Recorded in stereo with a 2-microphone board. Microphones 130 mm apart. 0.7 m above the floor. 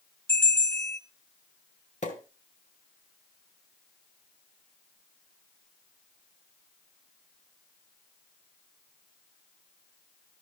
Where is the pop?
65° left (ahead or behind), 2.5 m.